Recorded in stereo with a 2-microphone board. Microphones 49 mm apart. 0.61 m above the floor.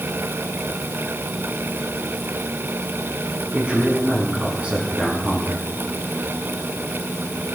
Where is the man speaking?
25° right (ahead or behind), 5.5 m.